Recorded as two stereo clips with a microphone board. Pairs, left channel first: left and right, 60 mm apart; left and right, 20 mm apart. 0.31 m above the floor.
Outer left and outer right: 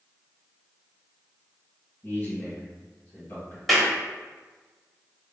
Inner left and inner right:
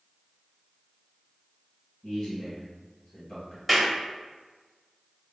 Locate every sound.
2.0 s a man speaking: 30° left (ahead or behind), 1.6 m
3.7 s a clap: 5° left (ahead or behind), 1.1 m